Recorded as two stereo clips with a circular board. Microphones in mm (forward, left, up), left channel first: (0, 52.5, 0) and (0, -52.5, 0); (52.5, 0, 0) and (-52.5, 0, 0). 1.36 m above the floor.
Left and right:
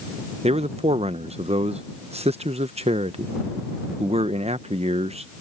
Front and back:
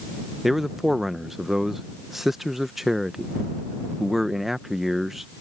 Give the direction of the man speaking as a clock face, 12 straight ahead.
3 o'clock.